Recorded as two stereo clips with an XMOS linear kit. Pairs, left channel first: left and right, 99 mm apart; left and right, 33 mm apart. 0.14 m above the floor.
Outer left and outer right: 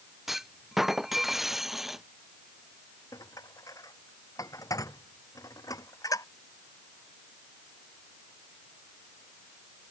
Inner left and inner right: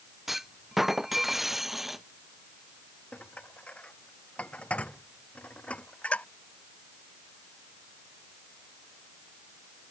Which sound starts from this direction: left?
Dishes clattering, at 3.1 s.